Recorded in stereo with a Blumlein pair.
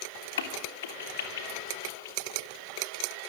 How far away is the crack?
About 2.5 m.